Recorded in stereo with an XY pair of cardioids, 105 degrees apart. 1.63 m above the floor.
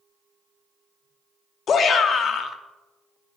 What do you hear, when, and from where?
1.7 s a shout: 50° left, 0.8 m